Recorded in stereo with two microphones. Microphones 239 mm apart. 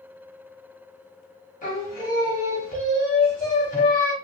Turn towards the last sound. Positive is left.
turn(degrees=35)  # may be behind; listen again after turning